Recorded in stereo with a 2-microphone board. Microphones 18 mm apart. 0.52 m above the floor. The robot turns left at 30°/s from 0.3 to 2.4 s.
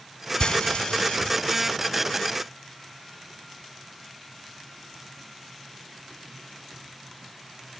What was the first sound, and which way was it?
Frying, 60° left (ahead or behind).